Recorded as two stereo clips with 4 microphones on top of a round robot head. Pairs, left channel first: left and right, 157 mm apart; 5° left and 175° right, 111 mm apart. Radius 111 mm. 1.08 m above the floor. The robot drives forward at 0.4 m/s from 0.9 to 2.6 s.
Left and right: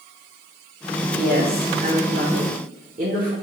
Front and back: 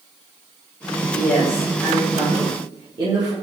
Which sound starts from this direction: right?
A woman speaking, at 1.1 s.